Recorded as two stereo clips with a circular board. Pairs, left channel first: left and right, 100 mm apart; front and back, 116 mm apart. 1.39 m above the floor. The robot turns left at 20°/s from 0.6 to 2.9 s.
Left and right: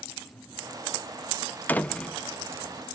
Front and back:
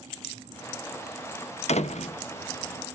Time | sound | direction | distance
1.7 | a door slam | 15° left | 0.6 m